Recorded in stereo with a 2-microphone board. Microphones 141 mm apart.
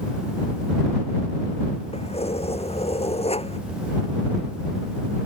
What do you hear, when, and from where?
1.9 s keys jangling: 45° left (ahead or behind)